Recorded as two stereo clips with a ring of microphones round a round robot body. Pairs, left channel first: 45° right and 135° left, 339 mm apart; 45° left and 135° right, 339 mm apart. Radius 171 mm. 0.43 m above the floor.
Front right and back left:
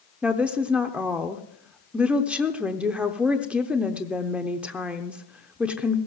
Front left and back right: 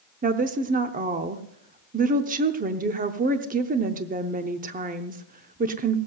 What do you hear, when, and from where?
0.2 s a woman speaking: 145° right, 0.7 m